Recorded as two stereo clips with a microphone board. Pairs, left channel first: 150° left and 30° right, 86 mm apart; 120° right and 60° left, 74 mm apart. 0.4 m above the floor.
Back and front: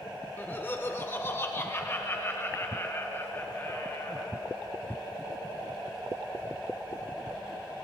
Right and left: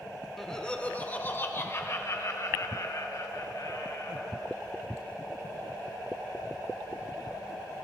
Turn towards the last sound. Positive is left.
turn(degrees=-150)